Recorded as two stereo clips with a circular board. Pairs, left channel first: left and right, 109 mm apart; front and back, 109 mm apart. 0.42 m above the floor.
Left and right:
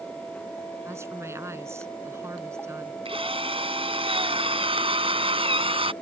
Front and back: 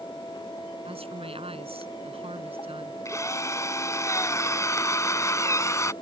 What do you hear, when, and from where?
0.8 s a woman speaking: 155° right
3.0 s a drill: 60° right